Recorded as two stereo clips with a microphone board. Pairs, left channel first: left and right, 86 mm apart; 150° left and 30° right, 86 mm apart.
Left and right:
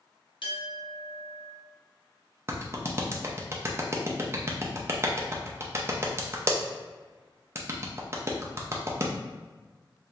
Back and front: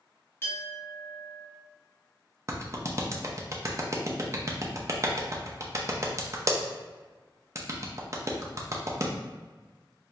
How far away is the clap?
About 0.6 m.